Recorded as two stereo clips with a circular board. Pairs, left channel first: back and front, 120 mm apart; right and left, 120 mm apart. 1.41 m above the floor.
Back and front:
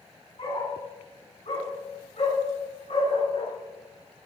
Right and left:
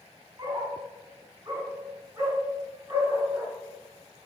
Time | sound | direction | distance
0.4 | a dog barking | 140° left | 5.5 m